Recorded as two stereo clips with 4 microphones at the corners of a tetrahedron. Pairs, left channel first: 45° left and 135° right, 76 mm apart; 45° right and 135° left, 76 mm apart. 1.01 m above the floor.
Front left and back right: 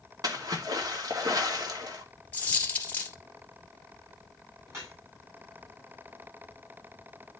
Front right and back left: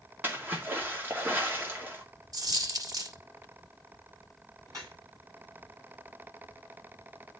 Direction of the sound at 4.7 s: Straight behind.